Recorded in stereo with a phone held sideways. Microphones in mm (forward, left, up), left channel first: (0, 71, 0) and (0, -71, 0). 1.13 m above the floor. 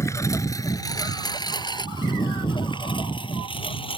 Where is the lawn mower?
20° left (ahead or behind); by 4.0 s 35° left (ahead or behind).